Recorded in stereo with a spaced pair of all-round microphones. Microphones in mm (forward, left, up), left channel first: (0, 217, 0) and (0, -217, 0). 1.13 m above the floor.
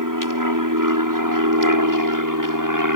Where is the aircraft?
45° right (ahead or behind).